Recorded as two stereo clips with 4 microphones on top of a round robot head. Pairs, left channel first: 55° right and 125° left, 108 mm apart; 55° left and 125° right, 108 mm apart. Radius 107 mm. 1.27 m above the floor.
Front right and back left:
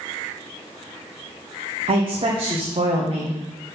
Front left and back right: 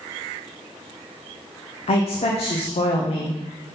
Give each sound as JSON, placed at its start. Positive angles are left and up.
{"t": 1.9, "sound": "a woman speaking", "azimuth_deg": 85, "distance_m": 1.0}